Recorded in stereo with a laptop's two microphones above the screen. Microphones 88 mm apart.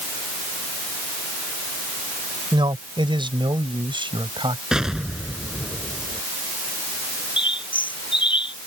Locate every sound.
2.5 s a man speaking: 75° right (ahead or behind); by 4.6 s 80° right
4.7 s an explosion: 5° right (ahead or behind)
7.4 s a bird: 80° left